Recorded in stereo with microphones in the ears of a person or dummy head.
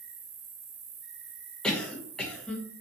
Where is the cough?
5° left (ahead or behind), 0.6 m.